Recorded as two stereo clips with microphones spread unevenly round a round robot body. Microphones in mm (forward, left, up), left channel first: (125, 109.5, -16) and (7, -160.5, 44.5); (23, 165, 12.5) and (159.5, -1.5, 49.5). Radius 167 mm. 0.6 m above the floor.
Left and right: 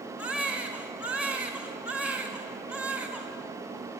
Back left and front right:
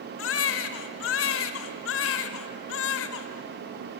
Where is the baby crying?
160° left, 1.2 m.